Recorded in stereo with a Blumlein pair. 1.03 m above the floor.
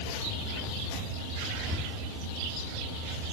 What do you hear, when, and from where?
1.6 s breathing: 15° right, 0.9 m